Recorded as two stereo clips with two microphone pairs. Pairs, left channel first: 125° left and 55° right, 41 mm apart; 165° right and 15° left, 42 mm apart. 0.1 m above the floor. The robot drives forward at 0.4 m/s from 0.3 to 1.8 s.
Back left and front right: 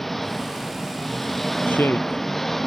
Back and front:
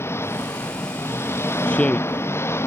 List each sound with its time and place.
0.0 s an engine running: 145° right; by 2.7 s 150° right
1.7 s a woman speaking: 140° left; by 2.2 s 145° left